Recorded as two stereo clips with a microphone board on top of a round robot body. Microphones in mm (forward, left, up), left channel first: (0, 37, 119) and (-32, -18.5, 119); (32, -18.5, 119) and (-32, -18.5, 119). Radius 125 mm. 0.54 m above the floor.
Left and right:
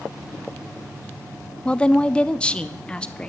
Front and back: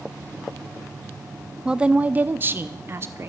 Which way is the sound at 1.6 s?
115° left.